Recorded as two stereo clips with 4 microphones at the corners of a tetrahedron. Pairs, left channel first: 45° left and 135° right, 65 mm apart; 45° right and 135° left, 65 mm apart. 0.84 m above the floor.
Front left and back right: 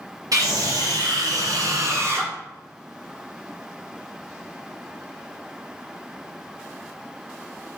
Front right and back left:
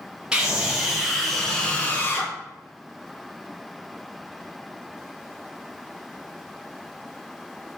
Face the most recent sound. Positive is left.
turn(degrees=-85)